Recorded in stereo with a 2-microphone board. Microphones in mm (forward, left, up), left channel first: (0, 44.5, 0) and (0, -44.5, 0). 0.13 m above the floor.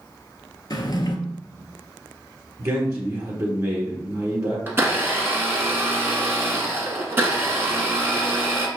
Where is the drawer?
50° left (ahead or behind), 0.6 m.